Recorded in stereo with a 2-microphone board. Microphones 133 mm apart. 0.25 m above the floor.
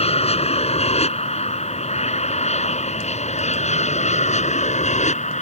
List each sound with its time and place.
0.0 s an aircraft: 50° left (ahead or behind); by 5.4 s 60° left (ahead or behind)